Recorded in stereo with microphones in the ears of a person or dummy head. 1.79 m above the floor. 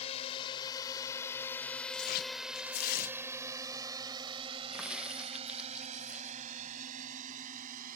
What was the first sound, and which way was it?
A drone, 40° left (ahead or behind).